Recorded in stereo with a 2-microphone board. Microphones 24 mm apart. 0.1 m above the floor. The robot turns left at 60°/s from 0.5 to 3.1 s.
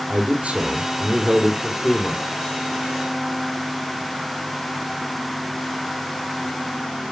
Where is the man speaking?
120° right, 3 m; by 2.2 s 135° left, 3 m.